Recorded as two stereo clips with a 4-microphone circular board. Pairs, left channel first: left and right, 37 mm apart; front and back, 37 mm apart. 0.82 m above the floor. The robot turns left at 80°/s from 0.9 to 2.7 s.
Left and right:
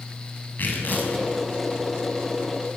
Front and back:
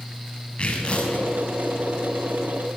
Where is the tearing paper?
60° left, 6.5 m; by 1.3 s 30° left, 6.5 m.